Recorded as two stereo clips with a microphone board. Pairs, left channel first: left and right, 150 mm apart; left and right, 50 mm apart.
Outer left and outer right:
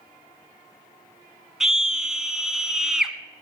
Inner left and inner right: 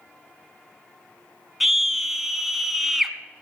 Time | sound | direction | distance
1.6 | a scream | 5° right (ahead or behind) | 1.1 m